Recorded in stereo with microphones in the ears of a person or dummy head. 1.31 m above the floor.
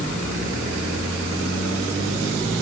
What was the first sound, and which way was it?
Only background noise.